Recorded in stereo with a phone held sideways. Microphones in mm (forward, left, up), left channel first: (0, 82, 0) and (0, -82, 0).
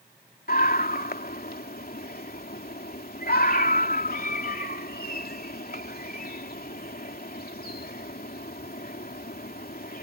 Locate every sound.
0.5 s a scream: 60° left (ahead or behind)